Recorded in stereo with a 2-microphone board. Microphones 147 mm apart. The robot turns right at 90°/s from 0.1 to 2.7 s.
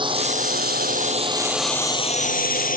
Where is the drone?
30° right (ahead or behind); by 2.8 s 65° left (ahead or behind).